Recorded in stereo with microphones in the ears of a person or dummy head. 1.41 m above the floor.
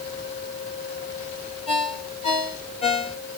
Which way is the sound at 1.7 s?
35° left (ahead or behind).